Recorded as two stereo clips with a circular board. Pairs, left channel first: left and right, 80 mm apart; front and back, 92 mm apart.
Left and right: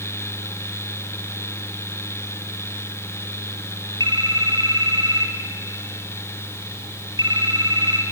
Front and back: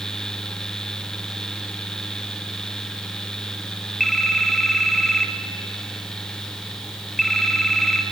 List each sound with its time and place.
4.0 s a phone ringing: 90° right, 2 m